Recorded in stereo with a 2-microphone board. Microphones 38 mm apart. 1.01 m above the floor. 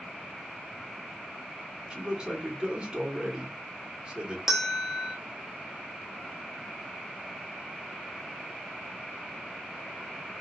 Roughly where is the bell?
Centre.